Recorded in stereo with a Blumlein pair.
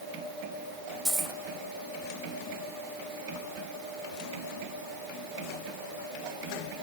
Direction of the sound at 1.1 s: 15° right.